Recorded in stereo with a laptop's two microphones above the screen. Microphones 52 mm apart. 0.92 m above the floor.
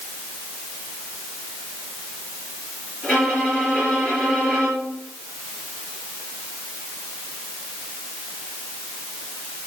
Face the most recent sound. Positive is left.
turn(degrees=25)  # may be behind; listen again after turning